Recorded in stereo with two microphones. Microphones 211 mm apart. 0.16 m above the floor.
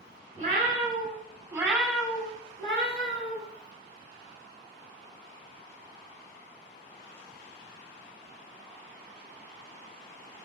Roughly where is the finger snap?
I don't hear a finger snap.